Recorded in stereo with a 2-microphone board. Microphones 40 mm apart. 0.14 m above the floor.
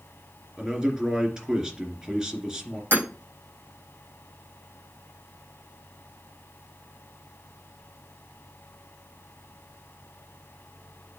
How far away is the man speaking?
About 2.5 m.